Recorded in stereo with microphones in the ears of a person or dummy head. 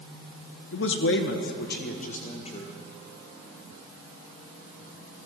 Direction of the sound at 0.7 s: 60° left (ahead or behind).